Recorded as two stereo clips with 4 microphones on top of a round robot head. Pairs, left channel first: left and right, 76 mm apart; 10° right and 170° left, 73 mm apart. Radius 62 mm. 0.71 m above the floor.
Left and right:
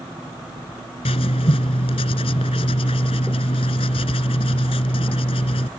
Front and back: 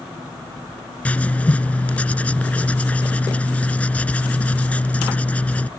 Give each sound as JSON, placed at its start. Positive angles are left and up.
{"t": 1.1, "sound": "writing", "azimuth_deg": 65}